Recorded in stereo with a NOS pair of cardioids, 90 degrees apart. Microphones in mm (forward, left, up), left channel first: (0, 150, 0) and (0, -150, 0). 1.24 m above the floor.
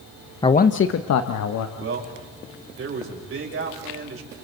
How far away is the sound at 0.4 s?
About 0.8 m.